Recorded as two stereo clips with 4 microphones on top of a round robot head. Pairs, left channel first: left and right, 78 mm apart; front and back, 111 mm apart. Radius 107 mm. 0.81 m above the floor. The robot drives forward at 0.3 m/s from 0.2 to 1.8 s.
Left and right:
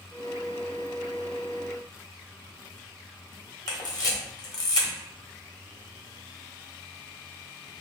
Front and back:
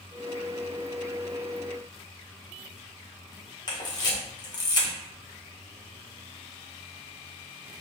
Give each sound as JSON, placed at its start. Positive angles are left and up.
{"t": 3.7, "sound": "a camera shutter", "azimuth_deg": 55, "distance_m": 1.2}